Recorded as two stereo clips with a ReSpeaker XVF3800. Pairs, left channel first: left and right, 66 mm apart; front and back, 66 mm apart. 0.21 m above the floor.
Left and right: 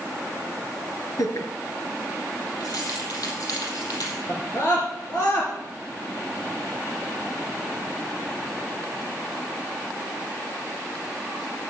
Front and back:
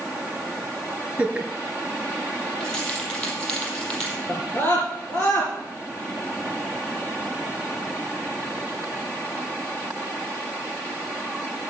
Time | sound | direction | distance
1.2 | laughter | 105° left | 3.5 m
2.6 | keys jangling | 80° left | 4.5 m
4.3 | a scream | 55° left | 2.5 m